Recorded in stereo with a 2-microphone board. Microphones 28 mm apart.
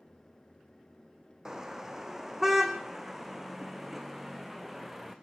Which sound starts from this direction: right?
A car horn, at 1.4 s.